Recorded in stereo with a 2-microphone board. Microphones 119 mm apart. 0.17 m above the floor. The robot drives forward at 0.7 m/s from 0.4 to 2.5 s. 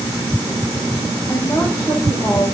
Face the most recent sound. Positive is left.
turn(degrees=25)  # may be behind; listen again after turning